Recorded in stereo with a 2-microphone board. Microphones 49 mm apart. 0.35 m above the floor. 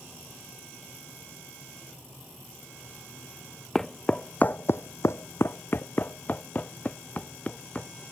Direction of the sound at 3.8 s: 10° left (ahead or behind).